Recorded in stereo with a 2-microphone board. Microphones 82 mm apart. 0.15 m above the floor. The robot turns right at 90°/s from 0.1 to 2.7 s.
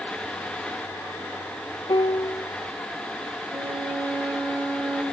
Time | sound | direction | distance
1.9 | a piano | 95° left | 0.8 m
3.5 | a violin | 50° right (ahead or behind) | 6 m